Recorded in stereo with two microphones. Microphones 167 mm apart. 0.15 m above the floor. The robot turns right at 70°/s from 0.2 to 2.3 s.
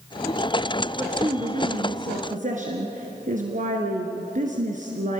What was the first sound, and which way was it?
A woman speaking, 170° right.